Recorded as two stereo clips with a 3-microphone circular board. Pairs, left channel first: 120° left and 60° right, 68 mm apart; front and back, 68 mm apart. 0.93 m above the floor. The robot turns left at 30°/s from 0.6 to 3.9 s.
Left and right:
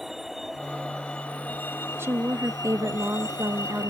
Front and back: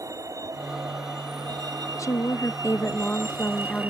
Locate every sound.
0.0 s a vehicle: 145° right; by 3.9 s 115° left
2.0 s a woman speaking: 15° right; by 3.9 s 75° right